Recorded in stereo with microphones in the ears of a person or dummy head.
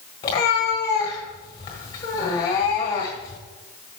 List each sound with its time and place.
0.2 s a cat meowing: 20° left (ahead or behind), 1.5 m